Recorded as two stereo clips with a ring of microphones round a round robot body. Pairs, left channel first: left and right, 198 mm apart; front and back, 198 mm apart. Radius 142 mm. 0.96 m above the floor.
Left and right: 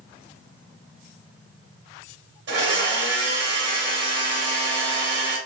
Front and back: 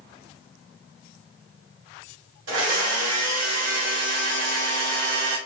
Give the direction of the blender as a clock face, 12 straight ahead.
5 o'clock.